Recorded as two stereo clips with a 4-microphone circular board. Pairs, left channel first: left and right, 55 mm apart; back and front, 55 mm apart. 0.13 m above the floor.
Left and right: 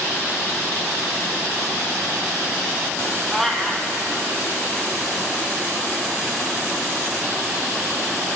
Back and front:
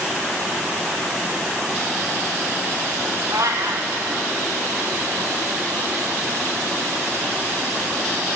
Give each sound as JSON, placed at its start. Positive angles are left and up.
{"t": 3.3, "sound": "a cat meowing", "azimuth_deg": 5, "distance_m": 0.7}